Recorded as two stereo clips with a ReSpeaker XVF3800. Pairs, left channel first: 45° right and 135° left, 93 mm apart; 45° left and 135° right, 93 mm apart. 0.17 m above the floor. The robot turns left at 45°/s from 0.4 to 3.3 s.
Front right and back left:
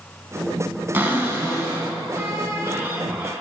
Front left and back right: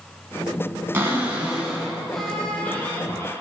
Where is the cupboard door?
Straight behind, 1.2 m; by 3.3 s 75° left, 1.2 m.